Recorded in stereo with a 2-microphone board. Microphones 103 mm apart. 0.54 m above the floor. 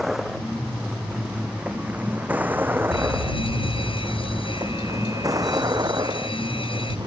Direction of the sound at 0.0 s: 5° right (ahead or behind).